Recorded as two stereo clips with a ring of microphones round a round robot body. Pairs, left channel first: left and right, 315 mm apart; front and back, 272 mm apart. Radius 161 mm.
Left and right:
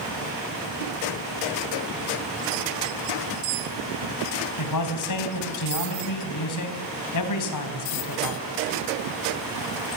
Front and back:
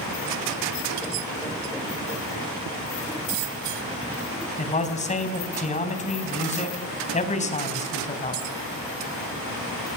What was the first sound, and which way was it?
A man speaking, 65° left.